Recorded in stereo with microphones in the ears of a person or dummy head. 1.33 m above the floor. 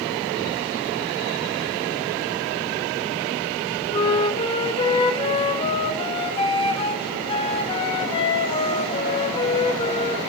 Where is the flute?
30° left (ahead or behind), 2.5 m.